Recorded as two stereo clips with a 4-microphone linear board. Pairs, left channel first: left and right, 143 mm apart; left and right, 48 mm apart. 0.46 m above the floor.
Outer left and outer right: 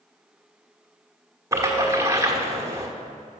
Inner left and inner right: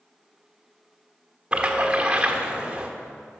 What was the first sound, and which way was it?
A splash, 20° right (ahead or behind).